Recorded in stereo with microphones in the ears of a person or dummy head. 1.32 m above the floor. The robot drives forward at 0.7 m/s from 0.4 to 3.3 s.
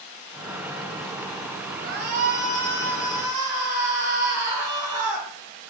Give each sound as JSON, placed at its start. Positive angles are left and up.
{"t": 1.8, "sound": "a shout", "side_deg": -40, "distance_m": 0.6}